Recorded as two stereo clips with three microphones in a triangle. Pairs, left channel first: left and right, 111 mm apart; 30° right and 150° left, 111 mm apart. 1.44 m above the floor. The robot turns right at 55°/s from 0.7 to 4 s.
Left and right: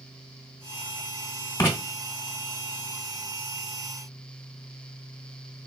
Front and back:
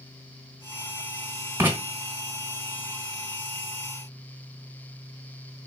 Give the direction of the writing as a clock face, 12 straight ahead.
8 o'clock.